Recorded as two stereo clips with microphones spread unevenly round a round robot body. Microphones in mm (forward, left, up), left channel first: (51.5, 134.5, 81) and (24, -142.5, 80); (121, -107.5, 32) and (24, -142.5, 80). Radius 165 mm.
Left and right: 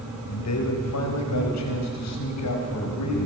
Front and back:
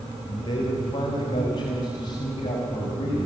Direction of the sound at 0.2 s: 65° left.